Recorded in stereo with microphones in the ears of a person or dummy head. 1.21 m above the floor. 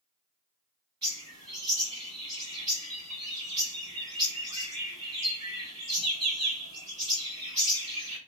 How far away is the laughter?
I don't hear laughter.